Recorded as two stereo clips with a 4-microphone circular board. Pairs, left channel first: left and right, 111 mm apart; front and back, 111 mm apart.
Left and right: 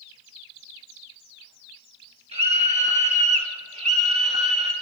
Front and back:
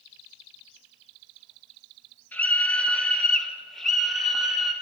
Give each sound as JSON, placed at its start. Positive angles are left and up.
{"t": 2.3, "sound": "a scream", "azimuth_deg": -75, "distance_m": 5.0}